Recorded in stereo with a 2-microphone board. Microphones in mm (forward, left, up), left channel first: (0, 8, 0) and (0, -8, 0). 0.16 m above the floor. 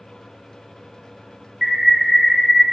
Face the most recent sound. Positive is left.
turn(degrees=-15)  # may be behind; listen again after turning